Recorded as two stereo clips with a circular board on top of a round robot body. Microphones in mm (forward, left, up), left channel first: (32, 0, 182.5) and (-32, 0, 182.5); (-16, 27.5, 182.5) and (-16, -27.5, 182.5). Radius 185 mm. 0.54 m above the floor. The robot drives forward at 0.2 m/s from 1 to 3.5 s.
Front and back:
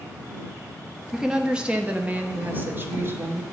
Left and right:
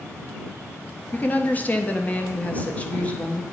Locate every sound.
1.1 s a woman speaking: 105° left, 0.8 m; by 3.4 s 150° left, 1.0 m